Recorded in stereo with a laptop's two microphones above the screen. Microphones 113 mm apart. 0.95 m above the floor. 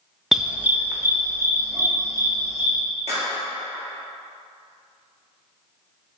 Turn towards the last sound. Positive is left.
turn(degrees=-70)  # may be behind; listen again after turning